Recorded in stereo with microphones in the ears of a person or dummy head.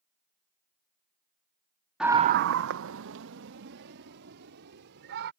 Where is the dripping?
No dripping in this recording.